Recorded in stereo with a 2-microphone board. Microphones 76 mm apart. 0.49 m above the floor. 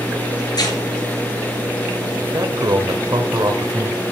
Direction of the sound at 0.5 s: 55° left (ahead or behind).